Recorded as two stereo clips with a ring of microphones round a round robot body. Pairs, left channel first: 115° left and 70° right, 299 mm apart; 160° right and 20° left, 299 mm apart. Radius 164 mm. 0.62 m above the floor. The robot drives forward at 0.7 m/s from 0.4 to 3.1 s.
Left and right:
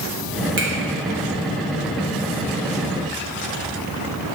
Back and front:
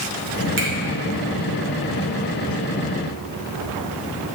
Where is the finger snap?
25° right, 1.9 m.